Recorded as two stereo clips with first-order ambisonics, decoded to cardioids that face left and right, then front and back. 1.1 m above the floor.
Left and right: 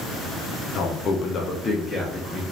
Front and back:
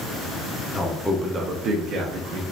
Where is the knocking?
I don't hear knocking.